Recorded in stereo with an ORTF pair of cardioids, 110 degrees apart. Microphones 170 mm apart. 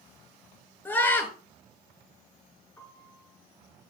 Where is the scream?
10° left, 6.5 m.